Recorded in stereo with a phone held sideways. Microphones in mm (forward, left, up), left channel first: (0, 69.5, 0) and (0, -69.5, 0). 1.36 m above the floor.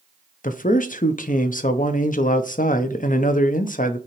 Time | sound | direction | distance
0.4 | a man speaking | 70° left (ahead or behind) | 0.6 m